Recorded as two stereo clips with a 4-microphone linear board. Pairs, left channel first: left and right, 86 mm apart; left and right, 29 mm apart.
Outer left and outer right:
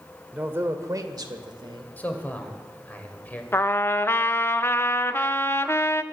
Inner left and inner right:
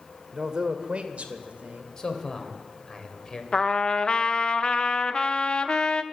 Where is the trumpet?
30° left (ahead or behind), 0.6 m.